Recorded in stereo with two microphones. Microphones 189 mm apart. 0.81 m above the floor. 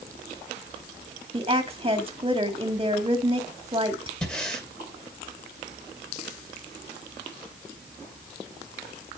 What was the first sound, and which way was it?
A woman speaking, 30° right (ahead or behind).